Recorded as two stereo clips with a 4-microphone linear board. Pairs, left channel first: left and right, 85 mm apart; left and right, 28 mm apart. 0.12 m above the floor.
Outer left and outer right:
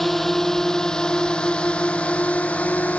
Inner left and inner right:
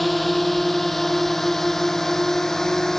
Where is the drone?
Centre (ahead or behind); by 3.0 s 15° left (ahead or behind).